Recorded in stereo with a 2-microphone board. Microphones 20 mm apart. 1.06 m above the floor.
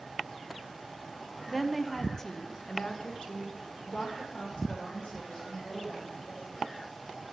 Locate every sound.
1.5 s a woman speaking: centre (ahead or behind), 0.7 m; by 6.7 s 75° left (ahead or behind), 2.5 m